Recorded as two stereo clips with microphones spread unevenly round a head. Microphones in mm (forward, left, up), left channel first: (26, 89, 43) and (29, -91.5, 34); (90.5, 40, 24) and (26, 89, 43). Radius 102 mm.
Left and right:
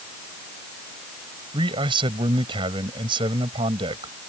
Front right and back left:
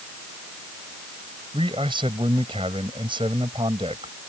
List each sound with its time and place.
1.5 s a man speaking: 155° right